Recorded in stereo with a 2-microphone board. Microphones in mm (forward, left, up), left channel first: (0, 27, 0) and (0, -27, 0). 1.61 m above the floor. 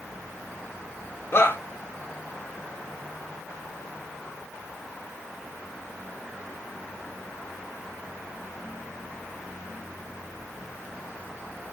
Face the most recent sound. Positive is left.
turn(degrees=45)  # may be behind; listen again after turning